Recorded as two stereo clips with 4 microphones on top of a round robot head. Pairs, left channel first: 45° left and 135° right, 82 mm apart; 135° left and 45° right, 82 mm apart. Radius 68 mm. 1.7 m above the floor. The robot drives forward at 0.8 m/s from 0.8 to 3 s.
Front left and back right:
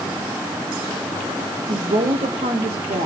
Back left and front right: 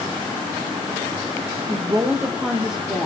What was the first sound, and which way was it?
A woman speaking, 95° right.